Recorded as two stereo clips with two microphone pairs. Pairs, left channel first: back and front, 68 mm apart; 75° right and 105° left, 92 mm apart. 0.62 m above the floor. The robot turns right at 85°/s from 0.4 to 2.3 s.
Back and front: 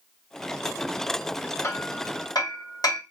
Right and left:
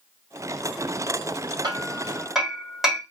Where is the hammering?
140° left, 1.6 m; by 3.0 s 165° right, 1.6 m.